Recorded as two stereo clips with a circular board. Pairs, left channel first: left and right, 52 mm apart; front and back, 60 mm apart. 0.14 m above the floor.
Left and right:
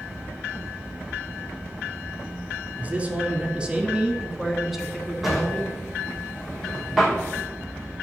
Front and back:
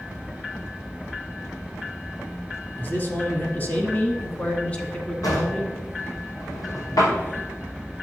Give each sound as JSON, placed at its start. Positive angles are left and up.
{"t": 2.8, "sound": "a man speaking", "azimuth_deg": -40, "distance_m": 1.9}
{"t": 5.2, "sound": "a drawer", "azimuth_deg": -5, "distance_m": 3.0}